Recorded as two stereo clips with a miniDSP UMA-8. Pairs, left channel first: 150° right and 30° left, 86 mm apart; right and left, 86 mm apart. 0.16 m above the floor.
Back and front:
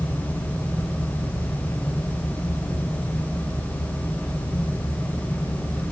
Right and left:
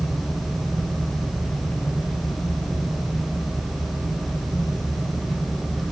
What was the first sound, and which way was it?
Only background noise.